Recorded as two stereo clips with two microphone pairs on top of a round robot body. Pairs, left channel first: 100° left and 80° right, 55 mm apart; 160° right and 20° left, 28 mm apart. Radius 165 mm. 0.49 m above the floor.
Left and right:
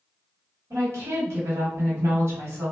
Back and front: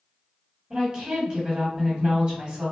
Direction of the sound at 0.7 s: 55° right.